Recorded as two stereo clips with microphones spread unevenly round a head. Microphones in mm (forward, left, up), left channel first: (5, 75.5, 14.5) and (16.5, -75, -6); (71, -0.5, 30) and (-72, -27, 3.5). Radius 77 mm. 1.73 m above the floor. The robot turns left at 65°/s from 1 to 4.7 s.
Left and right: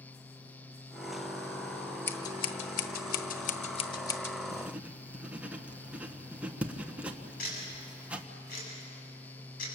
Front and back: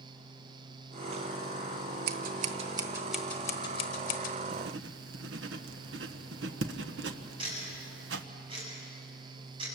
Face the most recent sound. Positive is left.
turn(degrees=130)